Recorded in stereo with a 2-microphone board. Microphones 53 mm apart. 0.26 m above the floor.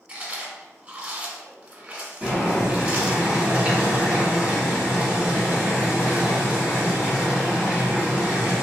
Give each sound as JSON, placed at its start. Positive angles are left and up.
{"t": 0.1, "sound": "chewing", "side_deg": -25, "distance_m": 0.8}
{"t": 2.2, "sound": "boiling", "side_deg": -25, "distance_m": 1.5}